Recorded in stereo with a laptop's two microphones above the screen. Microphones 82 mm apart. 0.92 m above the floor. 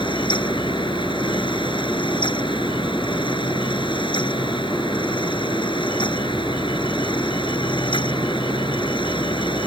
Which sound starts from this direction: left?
A fan, at 0.0 s.